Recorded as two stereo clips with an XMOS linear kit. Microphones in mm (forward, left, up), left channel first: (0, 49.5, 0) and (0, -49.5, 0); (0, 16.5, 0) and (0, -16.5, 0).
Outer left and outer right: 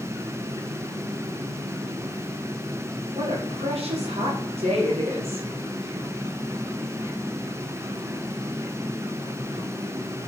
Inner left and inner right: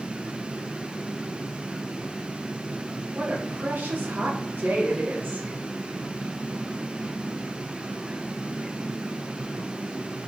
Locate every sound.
3.1 s a woman speaking: 90° right, 1.6 m